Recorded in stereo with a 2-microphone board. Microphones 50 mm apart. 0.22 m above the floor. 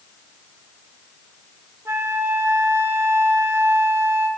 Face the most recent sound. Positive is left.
turn(degrees=-55)  # may be behind; listen again after turning